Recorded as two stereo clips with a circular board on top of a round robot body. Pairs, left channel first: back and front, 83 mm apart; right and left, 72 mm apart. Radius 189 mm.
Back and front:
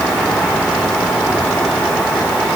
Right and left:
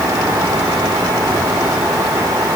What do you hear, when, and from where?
Only background noise.